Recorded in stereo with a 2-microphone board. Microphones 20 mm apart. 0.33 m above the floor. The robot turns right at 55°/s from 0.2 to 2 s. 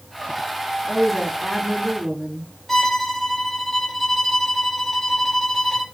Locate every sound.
0.8 s a woman speaking: 150° left, 2.5 m; by 2.5 s 145° right, 2.5 m
2.7 s a violin: 10° left (ahead or behind), 0.9 m